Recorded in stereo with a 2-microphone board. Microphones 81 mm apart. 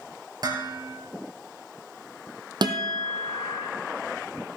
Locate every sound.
0.4 s dishes clattering: 55° right (ahead or behind), 3.5 m
2.6 s a guitar: 65° right (ahead or behind), 1.7 m